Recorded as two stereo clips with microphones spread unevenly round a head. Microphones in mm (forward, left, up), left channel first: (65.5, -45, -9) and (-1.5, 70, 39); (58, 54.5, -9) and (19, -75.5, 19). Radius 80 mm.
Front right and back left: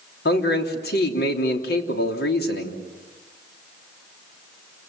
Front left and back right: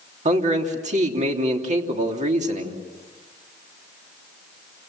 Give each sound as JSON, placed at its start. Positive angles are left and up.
{"t": 0.2, "sound": "a man speaking", "azimuth_deg": -75, "distance_m": 3.0}